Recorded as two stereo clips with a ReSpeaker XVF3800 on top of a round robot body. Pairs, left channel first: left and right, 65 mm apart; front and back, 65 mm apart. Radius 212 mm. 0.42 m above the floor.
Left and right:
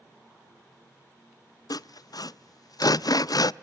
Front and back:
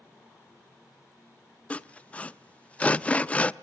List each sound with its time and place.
1.7 s sawing: 65° left, 0.5 m